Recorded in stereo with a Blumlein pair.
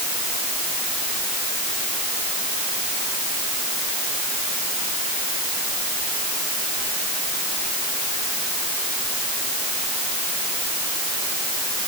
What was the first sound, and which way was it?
Only background noise.